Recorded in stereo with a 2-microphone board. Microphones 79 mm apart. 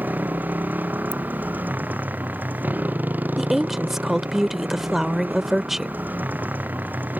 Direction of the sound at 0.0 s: 25° right (ahead or behind).